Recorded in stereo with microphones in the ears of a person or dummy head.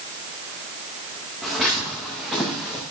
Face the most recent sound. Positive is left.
turn(degrees=-5)  # may be behind; listen again after turning